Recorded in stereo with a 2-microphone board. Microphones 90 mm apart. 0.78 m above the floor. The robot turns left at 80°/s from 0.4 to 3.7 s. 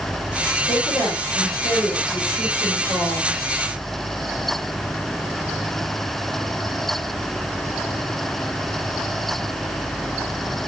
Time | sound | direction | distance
0.6 | a woman speaking | 165° right | 2 m